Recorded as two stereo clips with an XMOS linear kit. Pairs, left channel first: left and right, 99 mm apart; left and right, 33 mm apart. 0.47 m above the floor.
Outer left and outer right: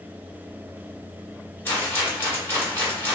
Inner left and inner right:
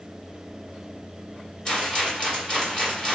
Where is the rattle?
20° left (ahead or behind), 2.0 m.